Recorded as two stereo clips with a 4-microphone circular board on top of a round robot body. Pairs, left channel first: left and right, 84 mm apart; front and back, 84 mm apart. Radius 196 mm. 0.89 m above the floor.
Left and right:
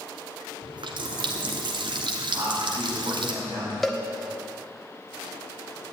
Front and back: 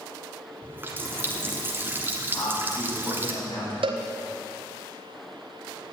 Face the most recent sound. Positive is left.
turn(degrees=180)